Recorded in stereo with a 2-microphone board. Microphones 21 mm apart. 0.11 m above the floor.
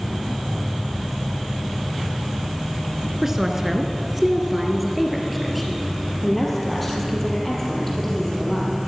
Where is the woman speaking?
20° right (ahead or behind), 1.4 m; by 8.7 s 10° left (ahead or behind), 4 m.